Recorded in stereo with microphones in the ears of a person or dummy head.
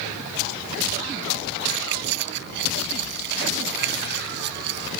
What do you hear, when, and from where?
1.7 s keys jangling: 65° right (ahead or behind)